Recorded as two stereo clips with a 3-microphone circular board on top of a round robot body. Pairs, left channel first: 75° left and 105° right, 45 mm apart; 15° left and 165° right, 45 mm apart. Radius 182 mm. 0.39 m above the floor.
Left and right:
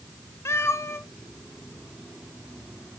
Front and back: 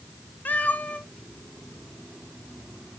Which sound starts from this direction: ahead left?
A cat meowing, at 0.5 s.